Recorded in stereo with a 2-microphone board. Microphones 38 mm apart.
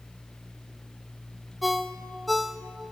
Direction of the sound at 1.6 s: Centre (ahead or behind).